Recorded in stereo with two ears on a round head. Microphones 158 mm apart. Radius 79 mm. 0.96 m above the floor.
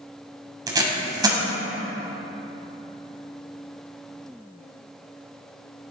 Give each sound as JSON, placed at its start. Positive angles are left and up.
{"t": 0.7, "sound": "tape being pulled", "side_deg": -20, "distance_m": 1.6}